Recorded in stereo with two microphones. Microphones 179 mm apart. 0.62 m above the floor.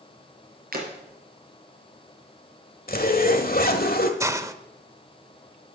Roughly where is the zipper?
Left.